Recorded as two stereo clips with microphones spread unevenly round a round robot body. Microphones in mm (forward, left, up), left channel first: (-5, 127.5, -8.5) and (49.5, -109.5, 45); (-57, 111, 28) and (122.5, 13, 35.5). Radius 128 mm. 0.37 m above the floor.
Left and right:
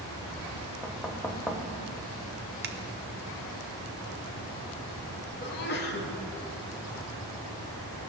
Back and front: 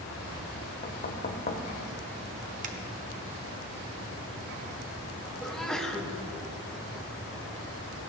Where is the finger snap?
40° right, 1.4 m.